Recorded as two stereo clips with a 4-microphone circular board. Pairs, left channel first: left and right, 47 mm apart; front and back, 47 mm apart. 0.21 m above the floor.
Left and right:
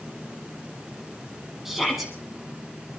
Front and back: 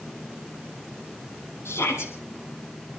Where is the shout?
5° right, 5.5 m.